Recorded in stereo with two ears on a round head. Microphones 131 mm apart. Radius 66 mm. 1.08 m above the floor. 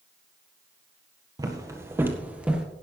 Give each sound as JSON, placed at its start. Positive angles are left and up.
{"t": 1.4, "sound": "footsteps", "side_deg": -25, "distance_m": 1.8}